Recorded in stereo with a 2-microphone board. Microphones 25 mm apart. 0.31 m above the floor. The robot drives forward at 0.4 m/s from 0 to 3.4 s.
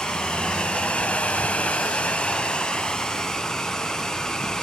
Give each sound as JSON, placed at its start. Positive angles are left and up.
{"t": 0.0, "sound": "running water", "side_deg": 35, "distance_m": 0.8}